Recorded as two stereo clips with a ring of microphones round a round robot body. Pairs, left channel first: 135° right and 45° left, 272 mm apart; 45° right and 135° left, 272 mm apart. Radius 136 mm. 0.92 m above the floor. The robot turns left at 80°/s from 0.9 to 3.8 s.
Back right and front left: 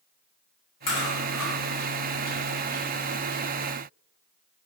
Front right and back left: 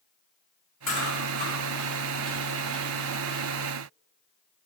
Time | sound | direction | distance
0.9 | chewing | 130° right | 1.6 m